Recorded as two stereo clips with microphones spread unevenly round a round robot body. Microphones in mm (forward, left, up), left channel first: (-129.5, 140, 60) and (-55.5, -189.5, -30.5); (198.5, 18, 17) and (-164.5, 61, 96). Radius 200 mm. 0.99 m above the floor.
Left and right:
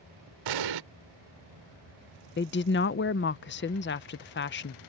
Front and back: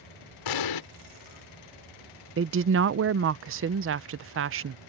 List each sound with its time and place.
0.5 s an explosion: 45° right
2.4 s a woman speaking: 150° left